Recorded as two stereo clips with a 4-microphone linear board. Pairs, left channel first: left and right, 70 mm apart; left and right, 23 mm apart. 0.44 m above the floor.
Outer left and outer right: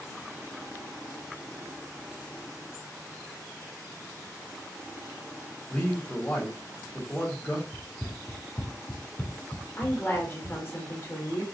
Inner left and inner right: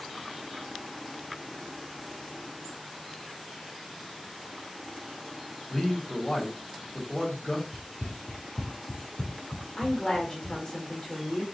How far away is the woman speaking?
About 1.5 m.